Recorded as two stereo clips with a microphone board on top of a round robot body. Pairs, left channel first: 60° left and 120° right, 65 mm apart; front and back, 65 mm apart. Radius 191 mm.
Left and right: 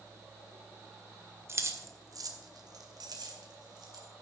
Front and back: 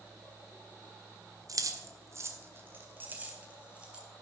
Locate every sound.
1.5 s keys jangling: 165° right, 1.6 m; by 4.0 s 105° right, 3.5 m